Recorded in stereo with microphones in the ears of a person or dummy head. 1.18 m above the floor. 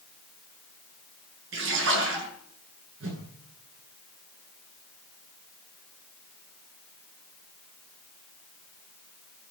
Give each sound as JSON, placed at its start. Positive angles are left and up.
{"t": 1.5, "sound": "a splash", "side_deg": -80, "distance_m": 8.5}
{"t": 3.0, "sound": "a whoosh", "side_deg": -85, "distance_m": 10.0}